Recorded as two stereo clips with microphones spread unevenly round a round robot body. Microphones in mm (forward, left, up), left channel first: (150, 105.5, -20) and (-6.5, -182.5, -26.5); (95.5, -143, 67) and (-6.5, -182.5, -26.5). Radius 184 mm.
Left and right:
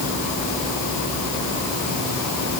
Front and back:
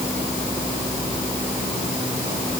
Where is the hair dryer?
No hair dryer in this recording.